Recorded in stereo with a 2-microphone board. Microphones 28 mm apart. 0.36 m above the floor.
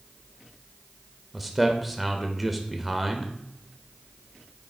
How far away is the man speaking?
About 0.8 m.